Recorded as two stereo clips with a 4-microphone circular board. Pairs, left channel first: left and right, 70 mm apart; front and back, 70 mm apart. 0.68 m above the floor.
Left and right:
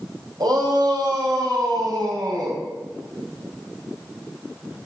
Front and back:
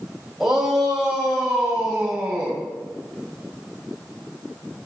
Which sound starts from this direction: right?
A shout, at 0.4 s.